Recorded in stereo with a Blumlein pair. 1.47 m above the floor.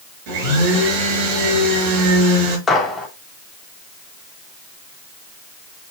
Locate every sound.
0.3 s a blender: 45° right, 5.5 m
2.7 s a gunshot: 15° left, 3 m